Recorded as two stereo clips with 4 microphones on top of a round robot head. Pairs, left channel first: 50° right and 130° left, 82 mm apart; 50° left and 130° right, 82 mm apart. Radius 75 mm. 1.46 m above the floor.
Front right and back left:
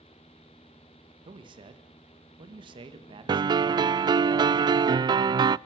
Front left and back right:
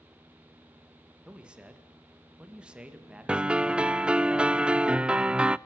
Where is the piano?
155° left, 0.5 m.